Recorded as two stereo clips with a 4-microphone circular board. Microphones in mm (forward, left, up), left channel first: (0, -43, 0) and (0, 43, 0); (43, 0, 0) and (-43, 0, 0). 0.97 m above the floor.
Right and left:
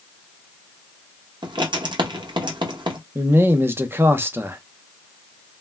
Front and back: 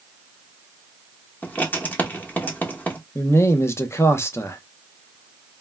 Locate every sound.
1.4 s writing: 70° left, 0.8 m
3.1 s a man speaking: 40° left, 0.5 m